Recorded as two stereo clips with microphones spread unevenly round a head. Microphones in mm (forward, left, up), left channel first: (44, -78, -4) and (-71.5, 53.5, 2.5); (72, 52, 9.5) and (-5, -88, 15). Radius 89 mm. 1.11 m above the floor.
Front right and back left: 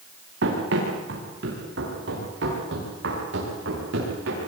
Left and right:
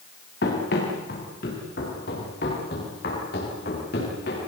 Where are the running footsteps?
100° left, 8.5 m.